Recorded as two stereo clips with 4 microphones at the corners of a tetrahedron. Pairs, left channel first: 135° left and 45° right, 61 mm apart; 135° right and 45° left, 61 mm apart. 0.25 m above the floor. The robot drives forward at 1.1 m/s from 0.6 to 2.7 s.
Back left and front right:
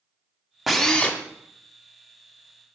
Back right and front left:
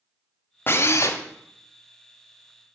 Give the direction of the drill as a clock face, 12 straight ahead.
4 o'clock.